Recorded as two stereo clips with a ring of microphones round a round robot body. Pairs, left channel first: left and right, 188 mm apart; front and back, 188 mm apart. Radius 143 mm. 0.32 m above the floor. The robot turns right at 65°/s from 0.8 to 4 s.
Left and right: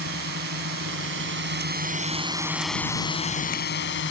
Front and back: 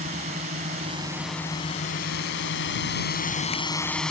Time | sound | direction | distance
0.0 | a drone | 120° right | ?